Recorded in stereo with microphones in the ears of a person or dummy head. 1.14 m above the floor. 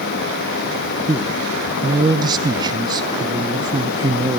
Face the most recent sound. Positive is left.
turn(degrees=-20)  # may be behind; listen again after turning